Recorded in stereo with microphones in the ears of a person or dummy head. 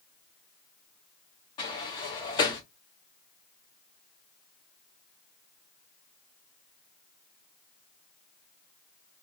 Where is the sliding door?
25° left (ahead or behind), 0.7 m.